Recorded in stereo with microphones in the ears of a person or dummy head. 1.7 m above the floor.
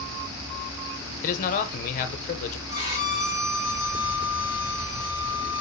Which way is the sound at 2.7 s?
45° right (ahead or behind).